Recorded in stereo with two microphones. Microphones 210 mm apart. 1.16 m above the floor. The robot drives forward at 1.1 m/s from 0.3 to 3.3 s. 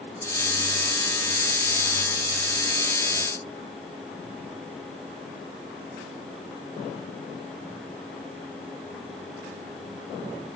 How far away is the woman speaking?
I don't hear a woman speaking.